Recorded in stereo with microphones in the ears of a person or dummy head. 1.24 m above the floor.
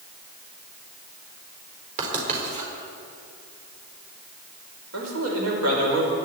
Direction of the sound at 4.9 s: 75° right (ahead or behind).